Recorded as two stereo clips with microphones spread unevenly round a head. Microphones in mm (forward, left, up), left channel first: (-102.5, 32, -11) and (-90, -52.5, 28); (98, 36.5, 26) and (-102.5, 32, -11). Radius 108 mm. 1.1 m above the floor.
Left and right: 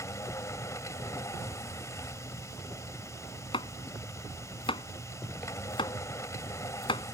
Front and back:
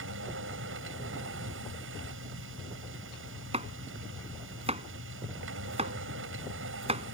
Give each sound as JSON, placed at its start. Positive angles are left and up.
{"t": 0.0, "sound": "a machine running", "azimuth_deg": 155}
{"t": 3.5, "sound": "chopping", "azimuth_deg": 120}